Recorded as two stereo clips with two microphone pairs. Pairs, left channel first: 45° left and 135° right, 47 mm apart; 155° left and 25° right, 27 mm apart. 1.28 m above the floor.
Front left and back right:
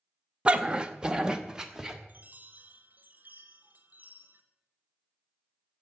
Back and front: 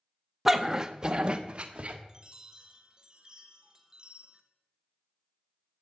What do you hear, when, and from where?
0.5 s a dog barking: 100° right, 0.7 m; by 2.0 s 65° right, 1.2 m
2.1 s a chime: 90° right, 1.1 m